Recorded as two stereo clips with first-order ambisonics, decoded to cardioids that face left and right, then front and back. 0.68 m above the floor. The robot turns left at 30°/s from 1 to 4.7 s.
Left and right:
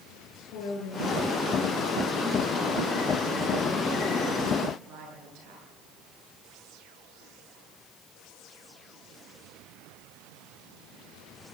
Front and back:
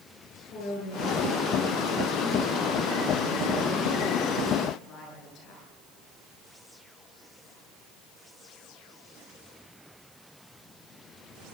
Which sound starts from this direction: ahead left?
A woman speaking, at 0.5 s.